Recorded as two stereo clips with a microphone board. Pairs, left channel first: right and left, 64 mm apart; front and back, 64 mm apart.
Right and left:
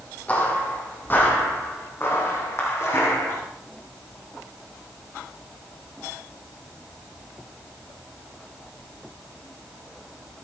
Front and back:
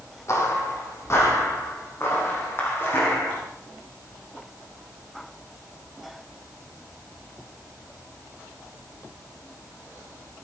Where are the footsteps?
30° right, 2.5 m; by 3.4 s 55° right, 3.5 m.